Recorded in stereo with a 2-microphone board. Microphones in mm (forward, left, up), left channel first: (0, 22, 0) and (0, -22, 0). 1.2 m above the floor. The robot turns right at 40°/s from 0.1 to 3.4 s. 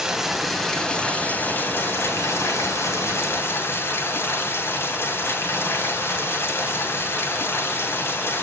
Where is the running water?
15° right, 3 m; by 8.4 s 120° left, 3 m.